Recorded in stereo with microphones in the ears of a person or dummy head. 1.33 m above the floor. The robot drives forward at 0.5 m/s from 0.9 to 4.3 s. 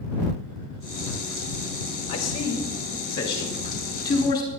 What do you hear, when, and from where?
2.1 s a man speaking: 35° left (ahead or behind), 2.5 m; by 4.5 s 25° left (ahead or behind), 3.5 m